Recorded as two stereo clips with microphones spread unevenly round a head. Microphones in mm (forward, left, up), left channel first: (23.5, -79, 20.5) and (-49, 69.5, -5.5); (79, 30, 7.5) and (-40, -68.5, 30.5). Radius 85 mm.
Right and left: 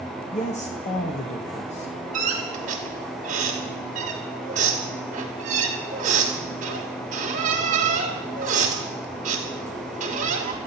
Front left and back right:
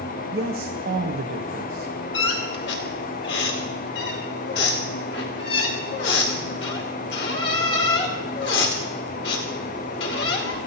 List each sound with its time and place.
0.3 s a man speaking: 115° right, 1.2 m
2.1 s a squeak: 65° left, 3 m